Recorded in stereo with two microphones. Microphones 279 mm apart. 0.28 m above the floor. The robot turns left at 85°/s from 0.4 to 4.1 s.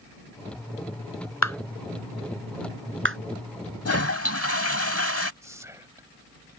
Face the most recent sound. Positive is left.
turn(degrees=-10)  # may be behind; listen again after turning